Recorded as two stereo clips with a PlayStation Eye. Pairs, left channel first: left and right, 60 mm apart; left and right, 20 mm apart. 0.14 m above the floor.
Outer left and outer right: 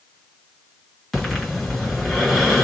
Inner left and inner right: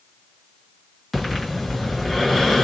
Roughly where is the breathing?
Centre.